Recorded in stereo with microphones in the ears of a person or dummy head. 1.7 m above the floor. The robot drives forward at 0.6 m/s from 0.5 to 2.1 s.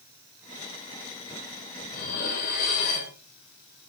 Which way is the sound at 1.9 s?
45° left (ahead or behind).